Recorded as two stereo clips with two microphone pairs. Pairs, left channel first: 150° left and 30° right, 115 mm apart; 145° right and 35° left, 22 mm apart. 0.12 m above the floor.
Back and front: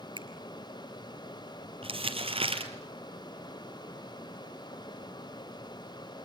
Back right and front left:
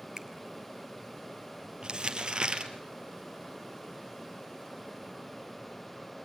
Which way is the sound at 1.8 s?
5° right.